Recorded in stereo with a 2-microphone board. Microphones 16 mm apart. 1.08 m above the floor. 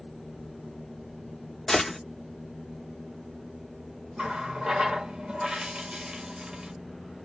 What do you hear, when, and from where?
1.7 s a gunshot: 20° left (ahead or behind), 0.6 m
4.2 s a running tap: 50° right (ahead or behind), 0.9 m